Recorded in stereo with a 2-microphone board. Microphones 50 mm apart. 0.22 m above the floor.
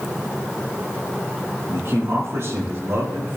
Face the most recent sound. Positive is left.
turn(degrees=-55)  # may be behind; listen again after turning